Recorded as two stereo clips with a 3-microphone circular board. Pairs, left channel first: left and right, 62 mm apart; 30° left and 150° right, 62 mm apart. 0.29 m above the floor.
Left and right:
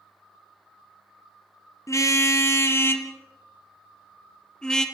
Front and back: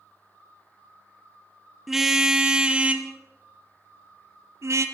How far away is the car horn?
About 2 m.